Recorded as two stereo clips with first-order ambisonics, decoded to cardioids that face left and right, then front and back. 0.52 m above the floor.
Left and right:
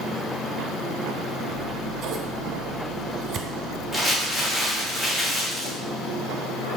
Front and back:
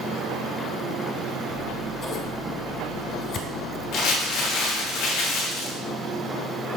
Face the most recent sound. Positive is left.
turn(degrees=0)